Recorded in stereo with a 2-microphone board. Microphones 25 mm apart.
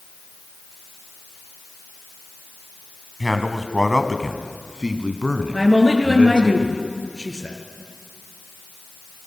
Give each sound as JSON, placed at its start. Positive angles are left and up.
{"t": 3.2, "sound": "a man speaking", "side_deg": 0, "distance_m": 2.0}
{"t": 5.5, "sound": "a woman speaking", "side_deg": -10, "distance_m": 5.0}